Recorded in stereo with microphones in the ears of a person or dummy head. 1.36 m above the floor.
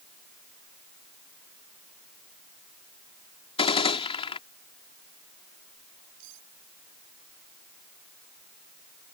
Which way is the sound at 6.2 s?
70° right (ahead or behind).